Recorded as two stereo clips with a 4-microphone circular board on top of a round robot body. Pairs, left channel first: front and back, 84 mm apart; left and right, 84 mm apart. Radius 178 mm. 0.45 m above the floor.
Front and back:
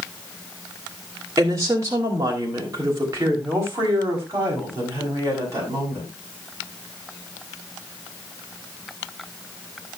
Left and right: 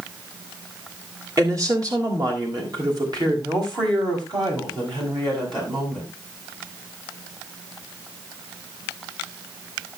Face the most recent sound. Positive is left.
turn(degrees=-120)